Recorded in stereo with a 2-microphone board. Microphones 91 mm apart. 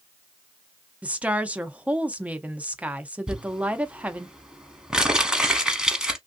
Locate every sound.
1.0 s a woman speaking: 15° right (ahead or behind), 0.5 m
3.3 s crumpling: 10° right (ahead or behind), 0.8 m